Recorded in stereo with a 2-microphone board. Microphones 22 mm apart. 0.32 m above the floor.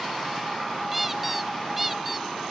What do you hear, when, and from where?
0.9 s a squeak: 10° right (ahead or behind)